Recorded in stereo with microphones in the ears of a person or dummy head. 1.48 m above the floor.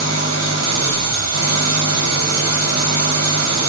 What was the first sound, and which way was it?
An engine running, 80° right.